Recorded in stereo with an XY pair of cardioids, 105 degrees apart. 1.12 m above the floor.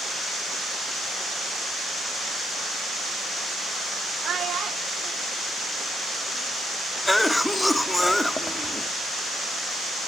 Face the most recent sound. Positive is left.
turn(degrees=10)